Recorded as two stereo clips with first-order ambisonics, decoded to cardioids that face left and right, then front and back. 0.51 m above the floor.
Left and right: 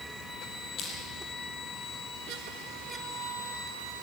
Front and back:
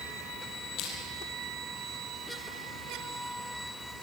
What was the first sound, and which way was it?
Crushing, 40° left.